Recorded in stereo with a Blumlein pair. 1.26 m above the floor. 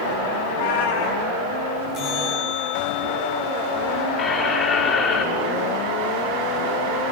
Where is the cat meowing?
60° left, 4.5 m.